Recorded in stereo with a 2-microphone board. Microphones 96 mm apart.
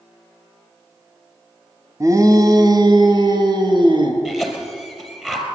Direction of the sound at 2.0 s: 35° right (ahead or behind).